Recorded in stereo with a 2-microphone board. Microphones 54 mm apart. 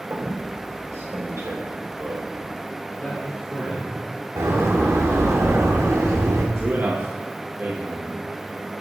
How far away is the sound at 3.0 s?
About 4 m.